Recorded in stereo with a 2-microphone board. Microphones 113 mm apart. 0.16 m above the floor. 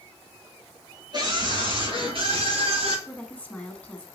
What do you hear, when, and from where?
1.1 s a scream: 40° right (ahead or behind), 3 m; by 3.0 s 60° right (ahead or behind), 4 m
3.1 s a woman speaking: 10° left (ahead or behind), 1.4 m